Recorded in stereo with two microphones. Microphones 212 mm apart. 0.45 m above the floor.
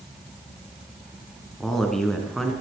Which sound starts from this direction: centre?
A man speaking, at 1.6 s.